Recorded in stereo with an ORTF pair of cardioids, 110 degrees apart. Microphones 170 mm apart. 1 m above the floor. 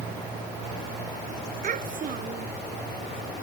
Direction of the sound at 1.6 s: 50° right.